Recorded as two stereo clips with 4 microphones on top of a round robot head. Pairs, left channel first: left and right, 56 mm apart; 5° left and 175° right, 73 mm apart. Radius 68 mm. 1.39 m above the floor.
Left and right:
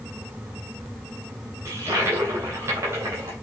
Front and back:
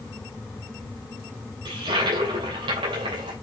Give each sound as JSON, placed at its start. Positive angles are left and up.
{"t": 1.6, "sound": "a toilet flushing", "azimuth_deg": -145, "distance_m": 2.5}